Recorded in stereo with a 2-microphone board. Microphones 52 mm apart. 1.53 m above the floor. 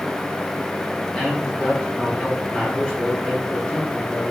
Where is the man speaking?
15° left (ahead or behind), 4 m.